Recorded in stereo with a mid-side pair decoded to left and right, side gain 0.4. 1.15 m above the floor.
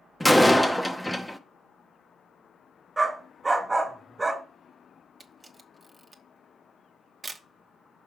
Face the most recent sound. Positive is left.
turn(degrees=-30)